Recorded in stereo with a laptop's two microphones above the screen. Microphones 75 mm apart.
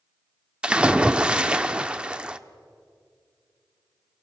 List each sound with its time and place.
0.6 s a splash: 15° right (ahead or behind), 0.8 m